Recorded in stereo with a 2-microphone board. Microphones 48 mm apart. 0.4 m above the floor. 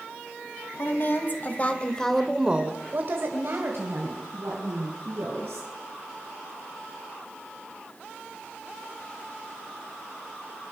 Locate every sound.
0.8 s a woman speaking: 50° left (ahead or behind), 2.5 m; by 5.7 s 80° right, 5 m